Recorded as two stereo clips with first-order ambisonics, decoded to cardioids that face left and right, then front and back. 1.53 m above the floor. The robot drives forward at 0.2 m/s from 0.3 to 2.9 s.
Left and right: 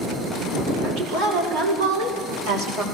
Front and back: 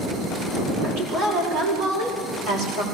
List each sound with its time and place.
0.8 s a woman speaking: 140° right, 7 m; by 2.8 s 145° right, 7.5 m